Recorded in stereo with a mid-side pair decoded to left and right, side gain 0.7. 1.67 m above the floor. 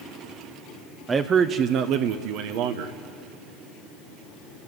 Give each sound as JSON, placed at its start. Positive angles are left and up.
{"t": 1.1, "sound": "a man speaking", "azimuth_deg": -25, "distance_m": 0.8}